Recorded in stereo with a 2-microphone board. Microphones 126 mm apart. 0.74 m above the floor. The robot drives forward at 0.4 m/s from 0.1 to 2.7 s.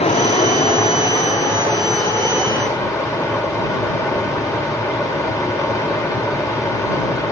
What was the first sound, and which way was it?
Running water, 55° left (ahead or behind).